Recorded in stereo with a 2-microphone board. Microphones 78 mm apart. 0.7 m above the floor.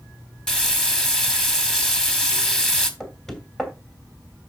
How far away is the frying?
About 1.6 m.